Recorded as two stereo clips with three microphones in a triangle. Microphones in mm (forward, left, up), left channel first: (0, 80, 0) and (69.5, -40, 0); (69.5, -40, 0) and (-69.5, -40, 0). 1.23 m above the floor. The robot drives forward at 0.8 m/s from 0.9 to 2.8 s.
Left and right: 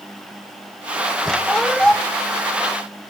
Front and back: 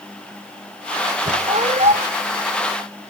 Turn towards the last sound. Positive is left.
turn(degrees=-160)